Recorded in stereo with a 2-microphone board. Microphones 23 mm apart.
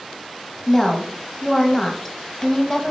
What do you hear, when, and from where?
0.7 s a woman speaking: 15° left (ahead or behind), 1.0 m